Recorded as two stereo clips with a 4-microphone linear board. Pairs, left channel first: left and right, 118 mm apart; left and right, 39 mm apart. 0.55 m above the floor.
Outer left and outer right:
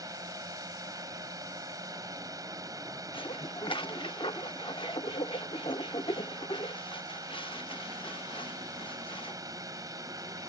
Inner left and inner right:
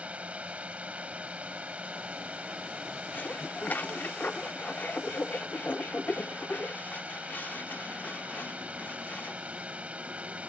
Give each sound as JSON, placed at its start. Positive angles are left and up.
{"t": 0.0, "sound": "a drone", "side_deg": -30}
{"t": 3.1, "sound": "dishes clattering", "side_deg": 45}